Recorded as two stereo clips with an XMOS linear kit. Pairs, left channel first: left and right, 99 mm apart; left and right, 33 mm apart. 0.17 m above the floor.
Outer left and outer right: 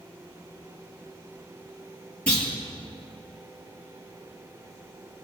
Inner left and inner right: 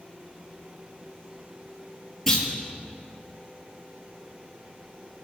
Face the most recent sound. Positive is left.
turn(degrees=10)  # may be behind; listen again after turning